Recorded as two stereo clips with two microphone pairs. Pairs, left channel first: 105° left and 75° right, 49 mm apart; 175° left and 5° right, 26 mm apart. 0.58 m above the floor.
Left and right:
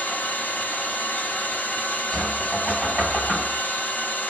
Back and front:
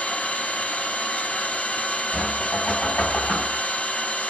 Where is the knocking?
175° right, 2.0 m.